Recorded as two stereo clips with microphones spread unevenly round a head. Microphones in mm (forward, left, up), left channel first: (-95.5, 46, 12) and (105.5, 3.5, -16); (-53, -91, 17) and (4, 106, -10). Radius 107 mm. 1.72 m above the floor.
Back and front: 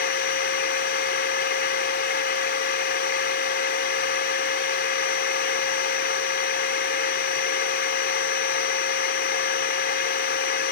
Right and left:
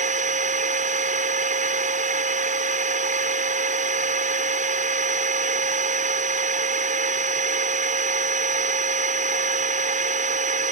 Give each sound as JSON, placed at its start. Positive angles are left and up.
{"t": 0.0, "sound": "a machine running", "azimuth_deg": 130}